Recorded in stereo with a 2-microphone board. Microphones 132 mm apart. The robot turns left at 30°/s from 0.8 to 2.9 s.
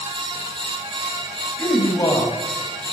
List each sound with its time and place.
1.6 s a man speaking: 20° left (ahead or behind), 1.4 m; by 2.9 s 25° left (ahead or behind), 1.4 m